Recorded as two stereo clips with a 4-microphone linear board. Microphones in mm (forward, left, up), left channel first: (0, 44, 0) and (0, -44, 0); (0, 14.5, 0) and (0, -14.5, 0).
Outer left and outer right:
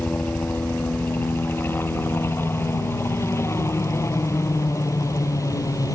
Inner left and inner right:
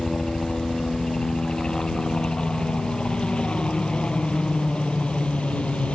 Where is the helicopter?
20° left (ahead or behind); by 6.0 s 45° left (ahead or behind).